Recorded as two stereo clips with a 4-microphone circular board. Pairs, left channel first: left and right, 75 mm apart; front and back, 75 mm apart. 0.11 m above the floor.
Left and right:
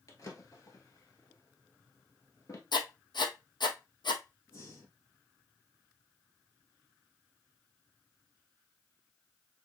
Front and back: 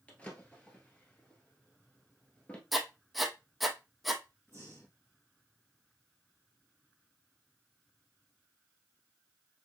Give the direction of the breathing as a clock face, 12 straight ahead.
10 o'clock.